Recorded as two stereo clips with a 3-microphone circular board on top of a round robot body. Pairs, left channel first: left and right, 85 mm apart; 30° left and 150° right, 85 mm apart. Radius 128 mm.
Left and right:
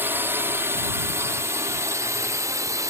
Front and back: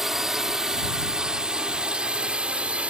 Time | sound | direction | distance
0.0 | a drone | 70° right | ?